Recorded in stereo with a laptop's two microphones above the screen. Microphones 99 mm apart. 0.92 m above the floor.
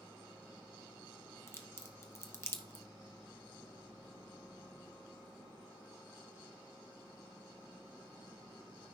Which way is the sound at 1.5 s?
25° left (ahead or behind).